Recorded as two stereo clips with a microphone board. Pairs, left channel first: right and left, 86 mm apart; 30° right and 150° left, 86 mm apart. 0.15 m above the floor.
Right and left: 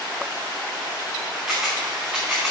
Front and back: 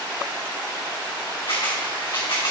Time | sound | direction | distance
1.5 | a camera shutter | 10° left | 3 m